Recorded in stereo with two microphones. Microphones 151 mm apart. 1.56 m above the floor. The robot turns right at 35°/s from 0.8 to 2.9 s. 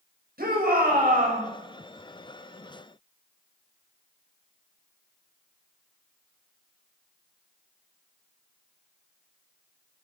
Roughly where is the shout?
Right.